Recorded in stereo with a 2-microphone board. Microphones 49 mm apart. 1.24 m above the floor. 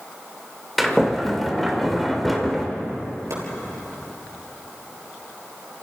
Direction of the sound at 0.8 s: Centre (ahead or behind).